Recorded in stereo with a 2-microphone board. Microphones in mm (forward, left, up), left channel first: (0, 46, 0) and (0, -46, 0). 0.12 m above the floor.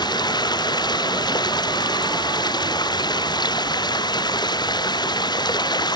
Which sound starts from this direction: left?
Running water, at 0.0 s.